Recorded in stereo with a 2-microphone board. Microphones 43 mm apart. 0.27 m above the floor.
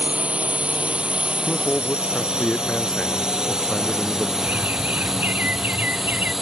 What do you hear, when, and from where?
0.0 s a drone: 30° right (ahead or behind); by 6.4 s 5° right (ahead or behind)
1.5 s a man speaking: 10° left (ahead or behind)
4.4 s a bird: 45° right (ahead or behind)